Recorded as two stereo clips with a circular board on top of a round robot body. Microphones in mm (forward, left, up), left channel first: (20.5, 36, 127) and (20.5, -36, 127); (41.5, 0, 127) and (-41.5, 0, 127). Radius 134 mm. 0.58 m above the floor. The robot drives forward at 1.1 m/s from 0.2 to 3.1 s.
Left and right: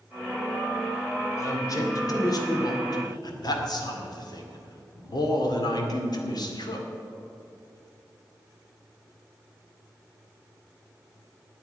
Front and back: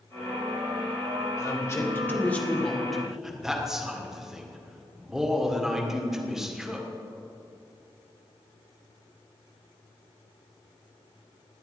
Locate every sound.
1.4 s a man speaking: 50° left, 3 m; by 6.8 s 95° left, 2 m